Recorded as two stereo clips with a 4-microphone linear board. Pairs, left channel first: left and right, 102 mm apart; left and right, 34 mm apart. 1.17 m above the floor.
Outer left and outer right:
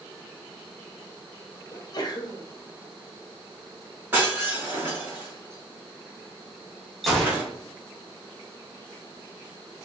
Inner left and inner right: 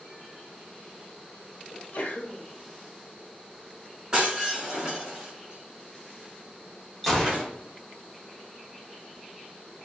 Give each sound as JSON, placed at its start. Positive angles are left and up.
{"t": 1.7, "sound": "a sneeze", "side_deg": 40, "distance_m": 0.8}
{"t": 4.1, "sound": "breaking glass", "side_deg": -20, "distance_m": 2.0}
{"t": 7.0, "sound": "a gunshot", "side_deg": 0, "distance_m": 1.1}